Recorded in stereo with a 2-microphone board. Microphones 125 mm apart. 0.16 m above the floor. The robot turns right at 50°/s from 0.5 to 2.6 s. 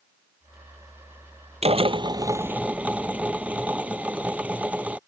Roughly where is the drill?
Ahead right.